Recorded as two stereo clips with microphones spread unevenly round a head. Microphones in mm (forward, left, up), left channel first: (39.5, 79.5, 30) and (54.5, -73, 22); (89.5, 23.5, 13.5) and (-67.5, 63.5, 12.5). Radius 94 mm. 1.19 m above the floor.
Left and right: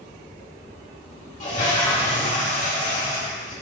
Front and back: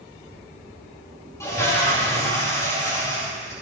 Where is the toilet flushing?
55° left, 2 m.